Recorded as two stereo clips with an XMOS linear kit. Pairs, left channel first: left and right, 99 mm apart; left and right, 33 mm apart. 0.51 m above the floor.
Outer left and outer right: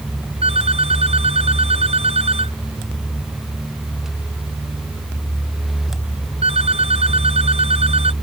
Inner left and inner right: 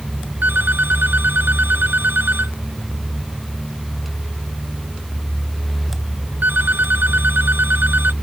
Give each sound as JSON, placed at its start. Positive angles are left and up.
{"t": 0.4, "sound": "a phone ringing", "side_deg": -80}